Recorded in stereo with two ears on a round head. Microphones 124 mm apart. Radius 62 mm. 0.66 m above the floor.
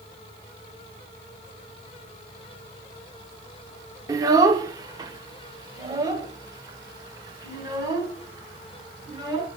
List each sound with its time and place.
4.1 s a child speaking: 25° right (ahead or behind), 0.9 m; by 9.5 s 30° right (ahead or behind), 4 m